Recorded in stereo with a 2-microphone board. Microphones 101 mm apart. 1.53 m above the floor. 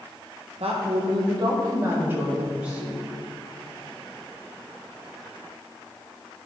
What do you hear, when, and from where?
0.6 s a woman speaking: 75° right (ahead or behind), 1.4 m; by 3.0 s 5° right (ahead or behind), 2.5 m